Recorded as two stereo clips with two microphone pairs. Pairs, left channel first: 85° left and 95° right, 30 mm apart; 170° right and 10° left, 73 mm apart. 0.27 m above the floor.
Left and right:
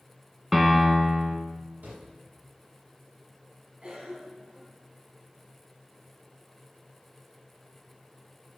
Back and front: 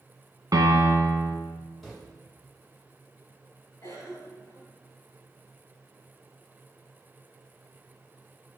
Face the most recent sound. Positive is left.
turn(degrees=-135)